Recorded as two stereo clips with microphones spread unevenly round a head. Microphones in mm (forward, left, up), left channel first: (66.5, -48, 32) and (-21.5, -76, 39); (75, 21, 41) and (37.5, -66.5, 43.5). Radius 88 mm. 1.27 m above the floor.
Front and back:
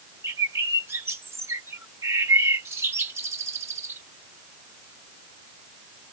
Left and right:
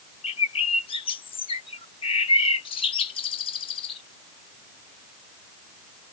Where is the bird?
125° left.